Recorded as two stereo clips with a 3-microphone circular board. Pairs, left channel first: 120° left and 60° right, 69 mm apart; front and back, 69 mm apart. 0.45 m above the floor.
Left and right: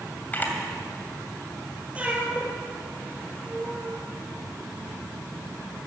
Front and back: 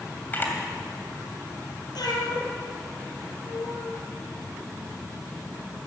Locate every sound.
0.3 s a camera shutter: 55° left, 2.5 m
1.9 s a cat meowing: 10° left, 3.5 m